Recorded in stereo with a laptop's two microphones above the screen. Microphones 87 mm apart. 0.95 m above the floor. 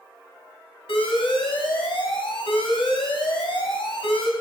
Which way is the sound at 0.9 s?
85° left.